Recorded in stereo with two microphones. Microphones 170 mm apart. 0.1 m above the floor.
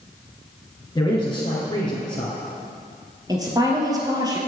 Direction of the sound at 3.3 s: 25° right (ahead or behind).